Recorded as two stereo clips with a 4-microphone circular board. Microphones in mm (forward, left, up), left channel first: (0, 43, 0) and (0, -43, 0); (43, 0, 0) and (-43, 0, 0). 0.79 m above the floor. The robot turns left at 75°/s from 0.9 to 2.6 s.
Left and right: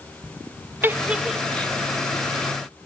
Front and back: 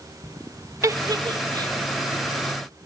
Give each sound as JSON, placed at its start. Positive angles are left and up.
{"t": 0.8, "sound": "a giggle", "azimuth_deg": -145, "distance_m": 0.7}